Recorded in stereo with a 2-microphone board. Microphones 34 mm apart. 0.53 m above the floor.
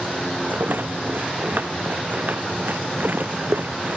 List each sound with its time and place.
0.5 s a rattle: 65° right (ahead or behind)